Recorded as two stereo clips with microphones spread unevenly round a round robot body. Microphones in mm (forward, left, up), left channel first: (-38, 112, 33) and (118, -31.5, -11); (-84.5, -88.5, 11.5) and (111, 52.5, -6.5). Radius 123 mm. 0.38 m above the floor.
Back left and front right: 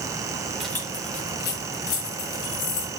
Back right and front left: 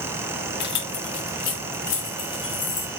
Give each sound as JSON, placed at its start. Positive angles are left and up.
{"t": 0.6, "sound": "keys jangling", "azimuth_deg": -115, "distance_m": 1.0}